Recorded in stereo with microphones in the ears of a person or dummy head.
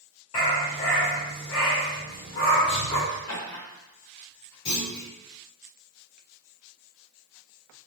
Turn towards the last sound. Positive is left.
turn(degrees=25)  # may be behind; listen again after turning